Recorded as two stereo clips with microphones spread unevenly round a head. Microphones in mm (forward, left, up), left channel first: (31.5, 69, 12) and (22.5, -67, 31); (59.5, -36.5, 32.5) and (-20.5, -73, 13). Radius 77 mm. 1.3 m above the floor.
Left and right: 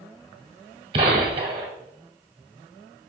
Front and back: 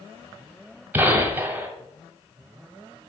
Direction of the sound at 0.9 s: 80° right.